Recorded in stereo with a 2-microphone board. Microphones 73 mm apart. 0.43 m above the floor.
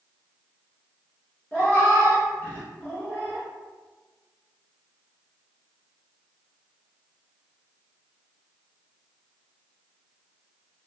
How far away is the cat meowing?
About 1.5 m.